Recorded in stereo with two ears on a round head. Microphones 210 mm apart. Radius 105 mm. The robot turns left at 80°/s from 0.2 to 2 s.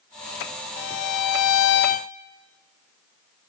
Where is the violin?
130° left, 0.8 m; by 2.1 s 30° left, 0.8 m.